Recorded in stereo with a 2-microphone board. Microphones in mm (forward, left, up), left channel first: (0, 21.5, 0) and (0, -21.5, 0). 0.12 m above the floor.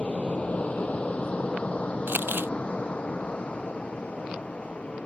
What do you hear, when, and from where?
0.0 s an aircraft: 30° left (ahead or behind); by 5.1 s 25° left (ahead or behind)
2.1 s crumpling: 55° right (ahead or behind)